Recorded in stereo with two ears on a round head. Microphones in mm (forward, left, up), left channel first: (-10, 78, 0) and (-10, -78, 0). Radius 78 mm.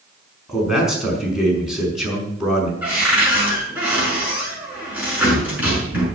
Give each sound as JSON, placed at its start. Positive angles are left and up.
{"t": 0.5, "sound": "a man speaking", "side_deg": -5, "distance_m": 5.0}
{"t": 2.8, "sound": "a cupboard door", "side_deg": -10, "distance_m": 6.5}